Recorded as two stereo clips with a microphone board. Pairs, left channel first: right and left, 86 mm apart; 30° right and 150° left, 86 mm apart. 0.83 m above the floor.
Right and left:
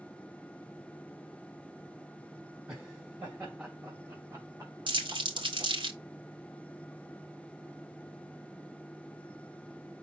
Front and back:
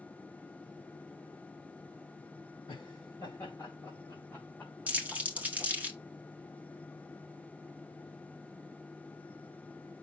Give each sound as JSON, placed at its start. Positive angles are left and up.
{"t": 2.7, "sound": "laughter", "azimuth_deg": 10, "distance_m": 4.0}
{"t": 4.9, "sound": "crumpling", "azimuth_deg": 80, "distance_m": 2.0}